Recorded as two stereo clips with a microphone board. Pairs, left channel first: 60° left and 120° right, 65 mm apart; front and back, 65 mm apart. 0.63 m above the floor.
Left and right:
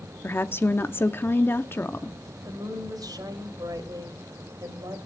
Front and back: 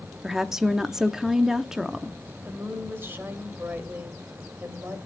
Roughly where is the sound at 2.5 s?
Behind right.